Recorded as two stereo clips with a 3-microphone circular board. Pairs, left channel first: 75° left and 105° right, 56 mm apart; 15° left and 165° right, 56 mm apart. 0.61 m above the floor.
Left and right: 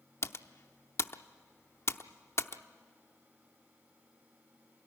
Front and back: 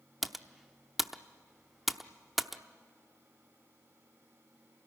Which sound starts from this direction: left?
Typing on a keyboard, at 0.2 s.